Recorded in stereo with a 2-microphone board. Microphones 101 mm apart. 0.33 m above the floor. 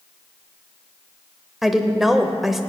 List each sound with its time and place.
1.6 s a woman speaking: centre (ahead or behind), 0.9 m